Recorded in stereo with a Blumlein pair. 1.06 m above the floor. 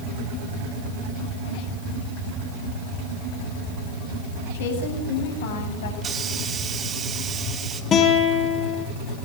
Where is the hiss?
20° right, 3 m.